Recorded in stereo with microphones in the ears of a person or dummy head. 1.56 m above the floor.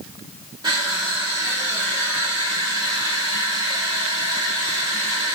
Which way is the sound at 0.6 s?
25° right (ahead or behind).